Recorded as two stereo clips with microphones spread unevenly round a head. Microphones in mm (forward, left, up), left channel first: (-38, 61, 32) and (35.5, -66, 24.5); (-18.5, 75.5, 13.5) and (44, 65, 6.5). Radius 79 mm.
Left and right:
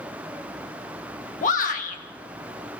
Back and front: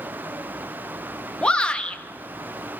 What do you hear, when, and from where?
1.4 s a shout: 95° left, 1.5 m